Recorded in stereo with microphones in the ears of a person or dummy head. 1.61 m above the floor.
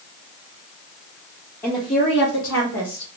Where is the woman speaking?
10° left (ahead or behind), 0.7 m; by 3.1 s 75° left (ahead or behind), 1.4 m.